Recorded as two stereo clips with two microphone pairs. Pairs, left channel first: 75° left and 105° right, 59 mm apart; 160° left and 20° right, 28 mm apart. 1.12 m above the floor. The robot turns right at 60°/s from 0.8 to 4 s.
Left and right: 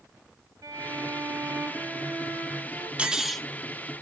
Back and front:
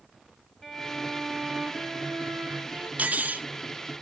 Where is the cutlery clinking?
35° right, 0.7 m; by 3.5 s 5° right, 0.7 m.